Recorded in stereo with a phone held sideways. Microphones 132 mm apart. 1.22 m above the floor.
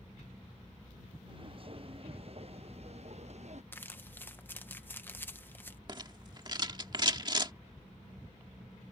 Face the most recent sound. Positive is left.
turn(degrees=-35)  # may be behind; listen again after turning